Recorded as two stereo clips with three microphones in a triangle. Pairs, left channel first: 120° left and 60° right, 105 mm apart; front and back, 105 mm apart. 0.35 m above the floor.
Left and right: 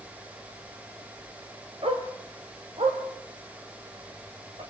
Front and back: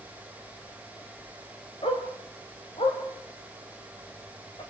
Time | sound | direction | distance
1.8 | a dog barking | 30° right | 4 m